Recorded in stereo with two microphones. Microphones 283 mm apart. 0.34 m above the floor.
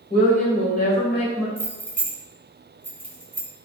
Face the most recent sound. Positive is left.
turn(degrees=-5)  # may be behind; listen again after turning